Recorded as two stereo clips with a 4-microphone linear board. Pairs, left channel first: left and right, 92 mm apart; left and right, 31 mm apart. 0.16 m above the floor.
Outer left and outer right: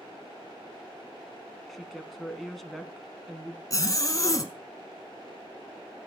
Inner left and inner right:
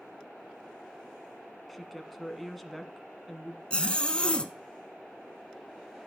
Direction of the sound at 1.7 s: 5° left (ahead or behind).